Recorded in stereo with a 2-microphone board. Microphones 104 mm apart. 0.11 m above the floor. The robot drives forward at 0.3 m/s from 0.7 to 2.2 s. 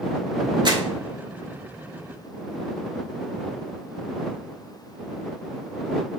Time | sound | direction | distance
0.7 | crumpling | 45° right (ahead or behind) | 0.7 m